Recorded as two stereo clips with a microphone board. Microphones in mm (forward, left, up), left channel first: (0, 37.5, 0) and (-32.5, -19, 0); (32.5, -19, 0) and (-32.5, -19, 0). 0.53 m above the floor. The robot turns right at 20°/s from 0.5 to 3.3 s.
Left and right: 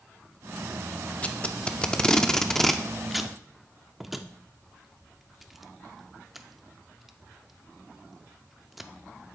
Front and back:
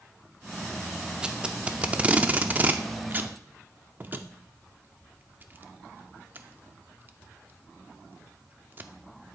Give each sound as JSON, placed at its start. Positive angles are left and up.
{"t": 1.2, "sound": "tape being pulled", "azimuth_deg": 115, "distance_m": 0.5}